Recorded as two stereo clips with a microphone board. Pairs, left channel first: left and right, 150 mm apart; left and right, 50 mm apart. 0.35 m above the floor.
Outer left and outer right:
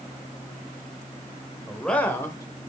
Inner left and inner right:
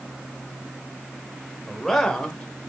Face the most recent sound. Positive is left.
turn(degrees=30)  # may be behind; listen again after turning